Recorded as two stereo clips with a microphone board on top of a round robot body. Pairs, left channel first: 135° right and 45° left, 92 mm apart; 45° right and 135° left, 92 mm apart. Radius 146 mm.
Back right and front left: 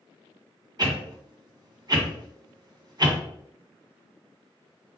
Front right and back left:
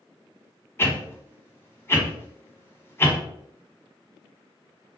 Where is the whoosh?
15° left, 1.7 m.